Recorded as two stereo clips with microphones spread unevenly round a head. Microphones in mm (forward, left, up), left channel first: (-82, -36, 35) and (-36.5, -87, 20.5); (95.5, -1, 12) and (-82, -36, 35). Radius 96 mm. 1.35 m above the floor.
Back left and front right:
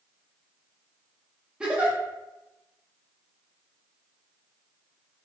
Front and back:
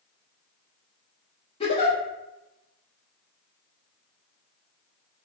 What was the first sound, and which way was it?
A giggle, 45° left.